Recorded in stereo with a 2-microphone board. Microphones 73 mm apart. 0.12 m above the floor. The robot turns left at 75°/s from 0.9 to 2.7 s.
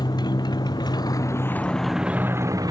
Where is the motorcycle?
75° left; by 2.7 s 60° right.